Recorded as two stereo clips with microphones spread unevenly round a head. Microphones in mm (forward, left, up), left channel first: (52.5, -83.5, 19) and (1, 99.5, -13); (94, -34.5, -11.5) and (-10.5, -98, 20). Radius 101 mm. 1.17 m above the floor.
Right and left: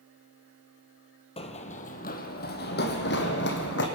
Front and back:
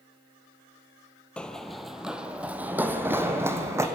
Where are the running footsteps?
70° right, 1.4 m; by 3.9 s 90° right, 3 m.